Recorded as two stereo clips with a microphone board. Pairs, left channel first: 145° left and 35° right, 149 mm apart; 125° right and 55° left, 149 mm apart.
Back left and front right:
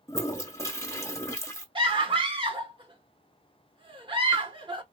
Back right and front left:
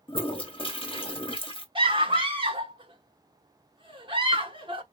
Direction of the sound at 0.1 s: 155° right.